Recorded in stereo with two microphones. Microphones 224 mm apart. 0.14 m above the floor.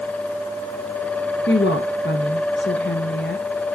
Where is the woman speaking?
55° left (ahead or behind), 2 m.